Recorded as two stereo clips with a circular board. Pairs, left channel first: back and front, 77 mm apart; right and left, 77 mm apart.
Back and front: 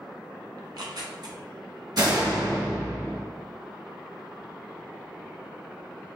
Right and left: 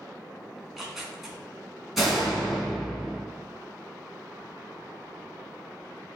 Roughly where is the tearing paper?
Ahead.